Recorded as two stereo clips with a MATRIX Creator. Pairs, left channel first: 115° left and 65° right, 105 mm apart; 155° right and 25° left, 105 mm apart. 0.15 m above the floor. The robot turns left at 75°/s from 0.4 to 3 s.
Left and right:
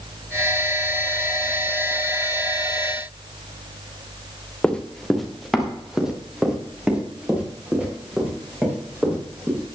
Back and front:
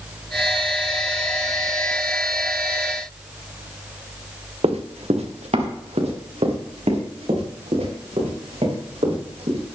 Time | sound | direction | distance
4.6 | running footsteps | 35° left | 1.5 m